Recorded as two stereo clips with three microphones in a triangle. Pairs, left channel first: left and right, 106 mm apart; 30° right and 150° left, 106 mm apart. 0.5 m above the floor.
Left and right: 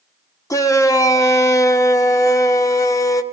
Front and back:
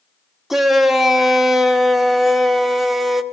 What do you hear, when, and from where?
0.5 s a shout: 65° left, 0.7 m